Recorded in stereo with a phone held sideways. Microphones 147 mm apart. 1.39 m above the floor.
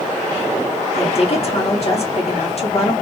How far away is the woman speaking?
About 2 m.